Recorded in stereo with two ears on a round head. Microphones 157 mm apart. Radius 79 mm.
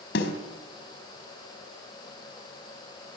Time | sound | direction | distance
0.1 | a snare drum | 65° left (ahead or behind) | 3.5 m